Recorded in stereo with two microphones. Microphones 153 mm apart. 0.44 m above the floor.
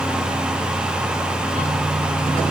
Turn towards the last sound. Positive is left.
No sound to turn to.